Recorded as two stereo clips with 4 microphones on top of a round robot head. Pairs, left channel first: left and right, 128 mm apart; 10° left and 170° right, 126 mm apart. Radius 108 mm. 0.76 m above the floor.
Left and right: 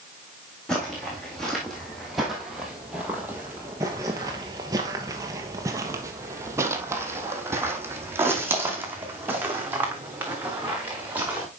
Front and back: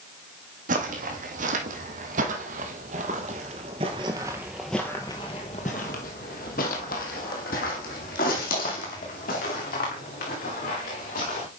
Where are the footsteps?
175° left, 2 m; by 11.5 s 15° right, 3.5 m.